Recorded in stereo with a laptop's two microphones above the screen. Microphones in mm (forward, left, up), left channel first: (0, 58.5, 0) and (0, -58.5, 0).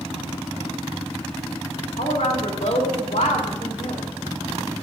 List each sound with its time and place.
2.0 s a woman speaking: 85° left, 2.5 m